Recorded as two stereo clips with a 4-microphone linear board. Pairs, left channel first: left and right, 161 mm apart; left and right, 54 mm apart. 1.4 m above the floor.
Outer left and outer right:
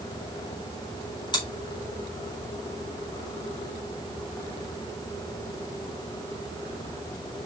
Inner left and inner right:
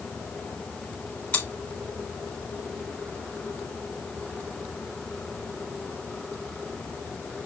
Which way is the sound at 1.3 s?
30° left (ahead or behind).